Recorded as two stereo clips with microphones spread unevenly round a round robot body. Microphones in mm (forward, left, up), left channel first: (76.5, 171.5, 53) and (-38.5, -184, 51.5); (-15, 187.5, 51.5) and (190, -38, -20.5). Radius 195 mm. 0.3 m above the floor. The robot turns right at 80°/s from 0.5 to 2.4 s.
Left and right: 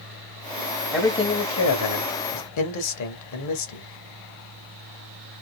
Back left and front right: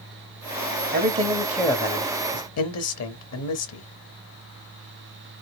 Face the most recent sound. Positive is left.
turn(degrees=95)